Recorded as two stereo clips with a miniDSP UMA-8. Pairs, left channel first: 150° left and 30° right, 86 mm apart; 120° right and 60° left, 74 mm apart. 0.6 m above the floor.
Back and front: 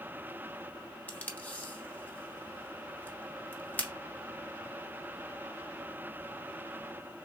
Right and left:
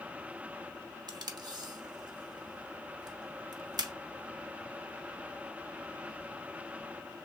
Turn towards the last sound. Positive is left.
turn(degrees=80)